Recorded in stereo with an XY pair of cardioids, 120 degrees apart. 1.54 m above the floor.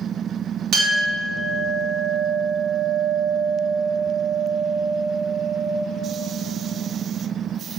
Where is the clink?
70° right, 1.9 m.